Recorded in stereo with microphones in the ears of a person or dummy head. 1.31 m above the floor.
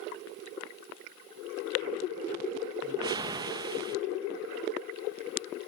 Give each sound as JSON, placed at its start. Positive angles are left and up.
{"t": 2.8, "sound": "a whoosh", "side_deg": -20, "distance_m": 0.8}